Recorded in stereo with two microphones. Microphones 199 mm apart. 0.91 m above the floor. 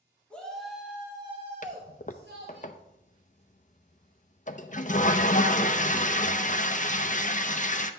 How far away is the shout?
About 2 m.